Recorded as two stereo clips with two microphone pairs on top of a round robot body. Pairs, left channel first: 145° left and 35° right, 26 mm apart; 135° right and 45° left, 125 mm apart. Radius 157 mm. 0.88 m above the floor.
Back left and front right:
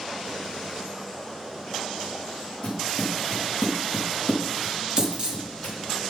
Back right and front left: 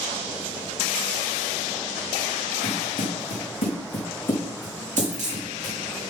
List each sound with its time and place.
2.6 s footsteps: 170° right, 3.5 m; by 5.8 s 160° left, 4 m
5.0 s a dropped coin: 20° left, 5 m